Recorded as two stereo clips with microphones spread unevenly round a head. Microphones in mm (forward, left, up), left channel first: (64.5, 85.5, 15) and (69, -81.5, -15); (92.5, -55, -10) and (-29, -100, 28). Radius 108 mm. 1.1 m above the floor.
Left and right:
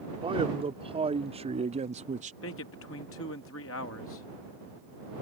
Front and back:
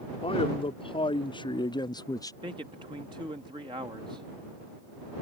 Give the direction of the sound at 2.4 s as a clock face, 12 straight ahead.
8 o'clock.